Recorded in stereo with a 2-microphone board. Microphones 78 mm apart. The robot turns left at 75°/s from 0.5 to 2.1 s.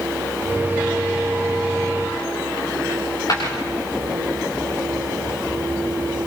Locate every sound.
2.9 s a dropped coin: 50° left (ahead or behind), 8.5 m